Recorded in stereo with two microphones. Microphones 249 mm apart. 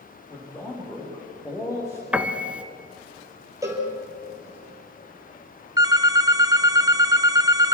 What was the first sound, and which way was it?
A man speaking, 15° left (ahead or behind).